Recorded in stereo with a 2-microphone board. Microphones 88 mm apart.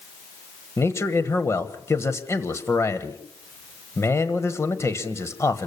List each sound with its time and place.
0.8 s a man speaking: 30° left (ahead or behind), 1.4 m